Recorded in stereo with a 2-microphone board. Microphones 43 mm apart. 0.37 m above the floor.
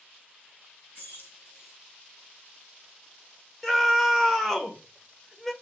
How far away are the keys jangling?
About 2.5 m.